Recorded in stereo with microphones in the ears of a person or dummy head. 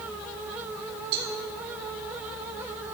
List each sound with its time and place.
1.1 s a cowbell: 55° right (ahead or behind), 2.5 m